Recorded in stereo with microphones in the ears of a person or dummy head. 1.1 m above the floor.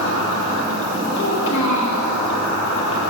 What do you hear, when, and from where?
0.0 s an insect: 70° left (ahead or behind), 1.1 m
1.2 s a child speaking: 70° left (ahead or behind), 1.4 m